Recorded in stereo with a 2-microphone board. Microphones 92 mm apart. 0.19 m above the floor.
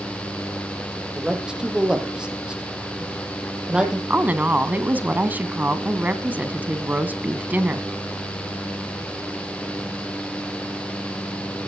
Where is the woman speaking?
20° right (ahead or behind), 1.6 m.